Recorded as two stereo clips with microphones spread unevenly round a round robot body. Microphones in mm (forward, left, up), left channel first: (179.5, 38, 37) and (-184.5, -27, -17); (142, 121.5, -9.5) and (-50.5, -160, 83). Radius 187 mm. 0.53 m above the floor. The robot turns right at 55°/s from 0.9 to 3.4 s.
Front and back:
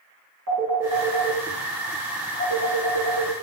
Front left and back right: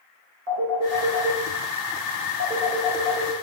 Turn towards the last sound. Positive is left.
turn(degrees=5)